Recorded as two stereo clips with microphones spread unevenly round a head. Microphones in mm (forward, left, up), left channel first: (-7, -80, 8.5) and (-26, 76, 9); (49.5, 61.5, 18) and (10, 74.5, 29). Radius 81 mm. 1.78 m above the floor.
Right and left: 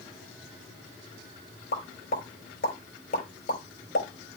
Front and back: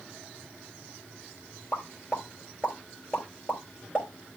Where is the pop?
105° right, 3.5 m.